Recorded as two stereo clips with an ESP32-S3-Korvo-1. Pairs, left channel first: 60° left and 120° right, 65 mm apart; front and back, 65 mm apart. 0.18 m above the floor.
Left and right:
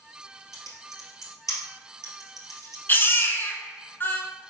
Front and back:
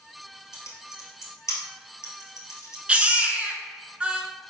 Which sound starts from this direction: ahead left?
Typing on a keyboard, at 0.5 s.